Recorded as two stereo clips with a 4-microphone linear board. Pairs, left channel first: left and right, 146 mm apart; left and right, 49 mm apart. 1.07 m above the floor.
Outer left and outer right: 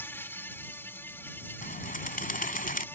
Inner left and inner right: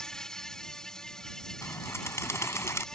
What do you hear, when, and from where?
0.0 s an insect: 15° left (ahead or behind)
1.6 s a bird: 70° left (ahead or behind)